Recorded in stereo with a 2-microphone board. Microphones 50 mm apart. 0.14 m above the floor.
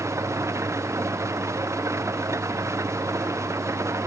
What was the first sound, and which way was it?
An engine running, 70° right (ahead or behind).